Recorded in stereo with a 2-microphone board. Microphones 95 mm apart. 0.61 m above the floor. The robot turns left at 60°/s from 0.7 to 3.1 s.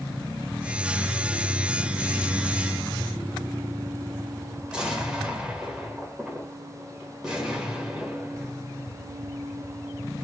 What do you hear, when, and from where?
4.7 s an explosion: 10° right (ahead or behind), 1.6 m